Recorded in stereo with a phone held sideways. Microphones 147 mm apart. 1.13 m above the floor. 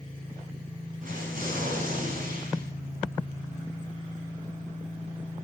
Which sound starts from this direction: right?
An explosion, at 1.0 s.